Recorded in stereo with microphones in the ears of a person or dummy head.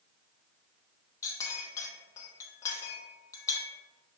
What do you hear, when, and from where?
1.2 s a clink: 20° left (ahead or behind), 0.8 m